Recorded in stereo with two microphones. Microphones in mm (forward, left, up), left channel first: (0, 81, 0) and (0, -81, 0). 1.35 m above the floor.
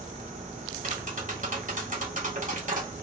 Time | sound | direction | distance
0.8 | tapping | 60° right (ahead or behind) | 1.6 m